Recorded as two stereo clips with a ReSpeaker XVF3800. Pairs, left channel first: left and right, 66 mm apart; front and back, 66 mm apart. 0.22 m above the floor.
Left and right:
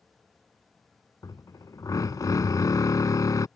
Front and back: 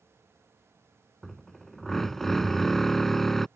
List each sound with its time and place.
1.2 s a drill: 85° left